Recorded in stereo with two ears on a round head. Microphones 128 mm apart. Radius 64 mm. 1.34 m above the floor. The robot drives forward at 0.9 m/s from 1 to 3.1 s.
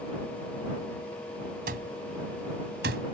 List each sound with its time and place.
1.7 s an alarm clock: 70° right (ahead or behind); by 3.0 s 80° right